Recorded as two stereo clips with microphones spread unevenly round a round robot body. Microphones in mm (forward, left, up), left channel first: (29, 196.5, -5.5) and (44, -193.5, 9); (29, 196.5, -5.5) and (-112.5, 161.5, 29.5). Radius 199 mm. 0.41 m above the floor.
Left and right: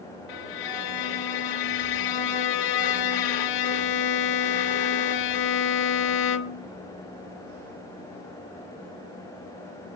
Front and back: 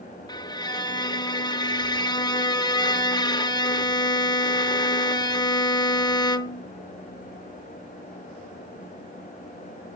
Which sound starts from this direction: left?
A violin, at 0.3 s.